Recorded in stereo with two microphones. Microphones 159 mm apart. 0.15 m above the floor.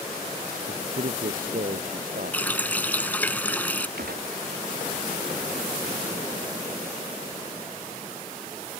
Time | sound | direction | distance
0.7 | a man speaking | 65° right (ahead or behind) | ?
2.3 | a running tap | 10° left (ahead or behind) | ?
4.0 | a gunshot | 90° right | ?